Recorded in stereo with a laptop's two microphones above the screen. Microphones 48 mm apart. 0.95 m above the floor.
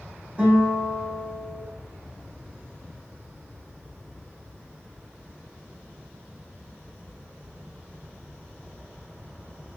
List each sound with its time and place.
0.4 s a guitar: 35° right (ahead or behind), 1.2 m